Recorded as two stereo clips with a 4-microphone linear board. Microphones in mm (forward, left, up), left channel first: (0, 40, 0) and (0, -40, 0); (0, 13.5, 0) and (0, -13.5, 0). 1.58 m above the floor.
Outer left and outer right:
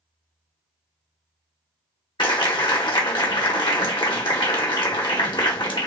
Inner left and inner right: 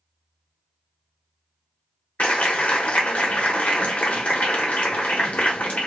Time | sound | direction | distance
2.2 | a clap | 80° left | 1.2 m